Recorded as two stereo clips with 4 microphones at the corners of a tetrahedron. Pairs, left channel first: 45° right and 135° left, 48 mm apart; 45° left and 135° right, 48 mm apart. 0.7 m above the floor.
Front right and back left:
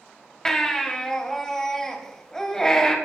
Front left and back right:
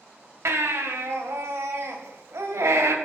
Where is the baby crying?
125° right, 1.5 m.